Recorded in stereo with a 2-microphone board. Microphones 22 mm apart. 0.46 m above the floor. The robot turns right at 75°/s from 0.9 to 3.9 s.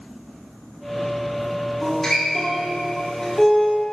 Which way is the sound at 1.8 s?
5° left (ahead or behind).